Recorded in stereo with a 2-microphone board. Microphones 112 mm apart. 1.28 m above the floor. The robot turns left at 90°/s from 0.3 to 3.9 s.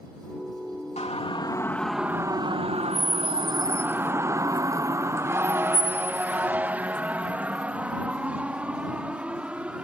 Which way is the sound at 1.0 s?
75° left (ahead or behind).